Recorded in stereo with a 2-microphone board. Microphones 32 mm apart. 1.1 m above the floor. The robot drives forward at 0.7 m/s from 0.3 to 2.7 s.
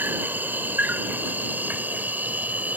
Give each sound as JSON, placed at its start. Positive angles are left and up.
{"t": 0.0, "sound": "an insect", "side_deg": -85}